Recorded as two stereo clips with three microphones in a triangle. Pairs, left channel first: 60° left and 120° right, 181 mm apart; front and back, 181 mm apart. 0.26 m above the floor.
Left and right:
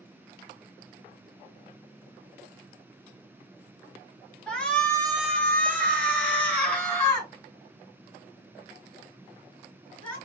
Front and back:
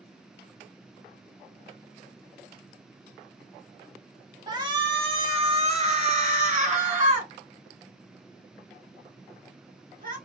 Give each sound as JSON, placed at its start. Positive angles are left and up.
{"t": 4.5, "sound": "a shout", "azimuth_deg": 140, "distance_m": 1.1}